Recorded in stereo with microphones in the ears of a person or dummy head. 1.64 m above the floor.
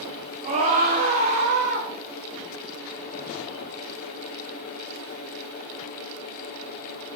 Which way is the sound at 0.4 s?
40° right (ahead or behind).